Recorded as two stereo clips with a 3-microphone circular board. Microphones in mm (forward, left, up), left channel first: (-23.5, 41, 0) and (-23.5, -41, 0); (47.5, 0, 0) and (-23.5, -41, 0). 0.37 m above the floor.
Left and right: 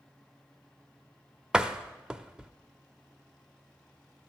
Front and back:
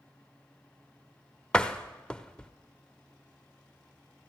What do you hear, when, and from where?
1.5 s a door slam: 30° right, 0.7 m